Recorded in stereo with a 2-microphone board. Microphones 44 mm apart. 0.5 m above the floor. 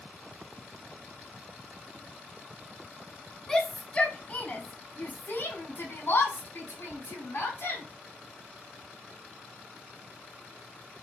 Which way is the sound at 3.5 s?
10° left (ahead or behind).